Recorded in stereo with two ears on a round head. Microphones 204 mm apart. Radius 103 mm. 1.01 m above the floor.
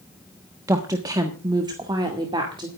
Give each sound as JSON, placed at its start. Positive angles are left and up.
{"t": 0.7, "sound": "a woman speaking", "side_deg": -15, "distance_m": 1.2}